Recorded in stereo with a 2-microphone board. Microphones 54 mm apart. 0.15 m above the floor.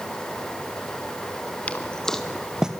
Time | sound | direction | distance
1.7 | footsteps | 30° left (ahead or behind) | 1.3 m